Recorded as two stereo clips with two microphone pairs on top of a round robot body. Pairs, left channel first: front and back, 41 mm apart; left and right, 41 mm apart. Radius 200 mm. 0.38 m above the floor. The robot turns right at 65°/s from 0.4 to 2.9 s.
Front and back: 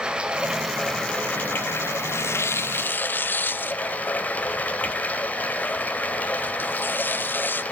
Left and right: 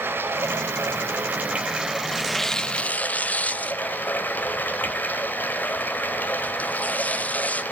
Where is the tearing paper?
15° right, 0.6 m; by 7.6 s 40° left, 0.6 m.